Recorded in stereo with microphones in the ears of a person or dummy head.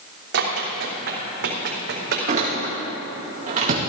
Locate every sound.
0.3 s running footsteps: 65° right (ahead or behind), 4 m; by 2.2 s 60° right (ahead or behind), 4 m
2.3 s a door slam: 40° right (ahead or behind), 1.9 m